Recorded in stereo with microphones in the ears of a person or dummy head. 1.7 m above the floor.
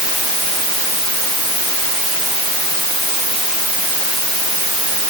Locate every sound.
Only background noise.